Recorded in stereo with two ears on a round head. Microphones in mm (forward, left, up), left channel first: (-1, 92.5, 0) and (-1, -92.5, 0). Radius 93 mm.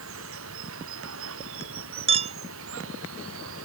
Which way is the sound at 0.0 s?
70° right (ahead or behind).